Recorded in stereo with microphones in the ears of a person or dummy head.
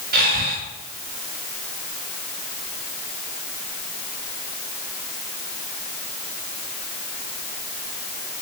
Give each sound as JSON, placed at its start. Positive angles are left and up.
{"t": 0.1, "sound": "breathing", "side_deg": -50, "distance_m": 6.5}